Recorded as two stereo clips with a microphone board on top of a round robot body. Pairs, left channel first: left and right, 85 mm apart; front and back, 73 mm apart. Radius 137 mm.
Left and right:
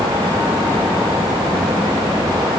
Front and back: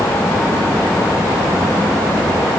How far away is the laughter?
I don't hear laughter.